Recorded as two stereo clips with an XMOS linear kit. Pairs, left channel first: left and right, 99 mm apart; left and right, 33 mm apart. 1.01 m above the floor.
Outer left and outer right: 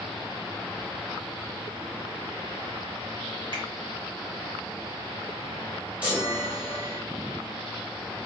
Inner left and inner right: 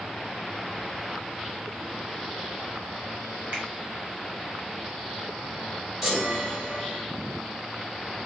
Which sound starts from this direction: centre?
A chime, at 6.0 s.